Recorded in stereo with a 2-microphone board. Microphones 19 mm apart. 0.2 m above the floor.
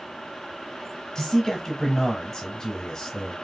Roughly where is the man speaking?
Left.